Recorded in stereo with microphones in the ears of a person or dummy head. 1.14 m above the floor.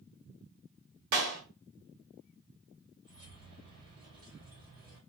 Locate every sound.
1.1 s a clap: 75° right (ahead or behind), 1.4 m
3.0 s keys jangling: 75° right (ahead or behind), 2 m